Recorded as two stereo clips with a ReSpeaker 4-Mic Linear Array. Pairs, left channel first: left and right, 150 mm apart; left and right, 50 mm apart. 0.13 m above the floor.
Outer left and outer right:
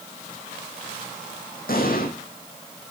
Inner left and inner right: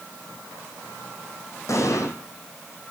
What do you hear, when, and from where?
1.7 s an explosion: 75° left (ahead or behind), 4 m